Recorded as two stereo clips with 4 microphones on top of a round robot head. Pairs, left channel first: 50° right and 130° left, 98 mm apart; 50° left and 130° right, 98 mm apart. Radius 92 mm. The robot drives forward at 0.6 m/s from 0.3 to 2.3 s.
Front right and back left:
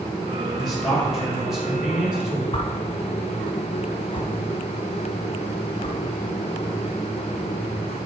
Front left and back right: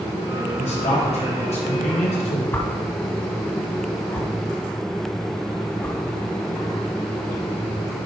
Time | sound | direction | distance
0.6 | a man speaking | 40° left | 4.5 m
2.5 | a whoosh | 20° right | 1.8 m